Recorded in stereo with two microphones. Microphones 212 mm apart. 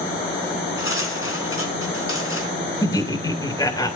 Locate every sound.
0.8 s cutlery clinking: 75° left (ahead or behind), 3 m
2.8 s laughter: 15° left (ahead or behind), 2 m